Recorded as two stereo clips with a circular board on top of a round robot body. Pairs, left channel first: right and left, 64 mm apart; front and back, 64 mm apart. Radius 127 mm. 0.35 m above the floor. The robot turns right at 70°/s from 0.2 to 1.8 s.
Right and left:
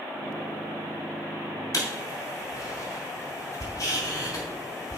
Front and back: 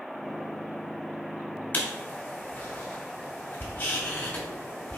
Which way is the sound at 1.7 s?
60° right.